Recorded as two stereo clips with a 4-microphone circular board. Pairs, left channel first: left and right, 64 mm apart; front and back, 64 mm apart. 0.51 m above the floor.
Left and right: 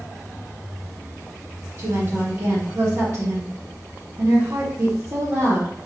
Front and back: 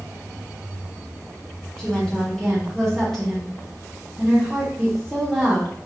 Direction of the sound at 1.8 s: 80° right.